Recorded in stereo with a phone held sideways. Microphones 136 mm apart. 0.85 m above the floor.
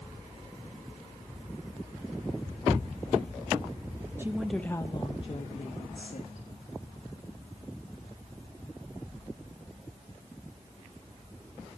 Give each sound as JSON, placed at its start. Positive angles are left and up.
{"t": 4.2, "sound": "a woman speaking", "side_deg": -15, "distance_m": 1.0}